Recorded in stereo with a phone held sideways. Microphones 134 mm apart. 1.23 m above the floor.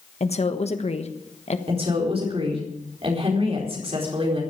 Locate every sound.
0.2 s a woman speaking: 50° left (ahead or behind), 1.3 m
1.7 s a woman speaking: 45° right (ahead or behind), 4 m